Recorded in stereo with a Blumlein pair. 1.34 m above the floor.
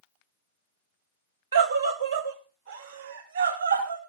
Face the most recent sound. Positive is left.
turn(degrees=-75)